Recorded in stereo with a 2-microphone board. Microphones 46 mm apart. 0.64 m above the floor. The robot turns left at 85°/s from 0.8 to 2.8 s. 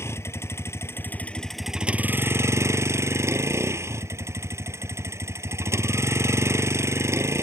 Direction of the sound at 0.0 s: 70° left.